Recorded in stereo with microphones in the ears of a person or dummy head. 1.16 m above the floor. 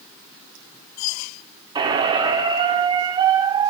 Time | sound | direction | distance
1.8 | a squeak | 20° right (ahead or behind) | 0.6 m